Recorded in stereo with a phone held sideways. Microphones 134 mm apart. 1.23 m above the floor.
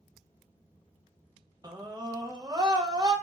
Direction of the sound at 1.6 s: 30° right (ahead or behind).